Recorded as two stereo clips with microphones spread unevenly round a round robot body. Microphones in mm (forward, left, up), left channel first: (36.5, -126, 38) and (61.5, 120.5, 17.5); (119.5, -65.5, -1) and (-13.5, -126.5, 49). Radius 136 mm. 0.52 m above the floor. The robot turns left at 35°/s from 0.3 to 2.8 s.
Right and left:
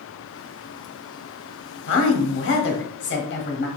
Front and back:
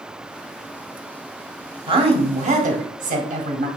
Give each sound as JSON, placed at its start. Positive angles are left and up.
{"t": 1.9, "sound": "a woman speaking", "azimuth_deg": -95, "distance_m": 1.1}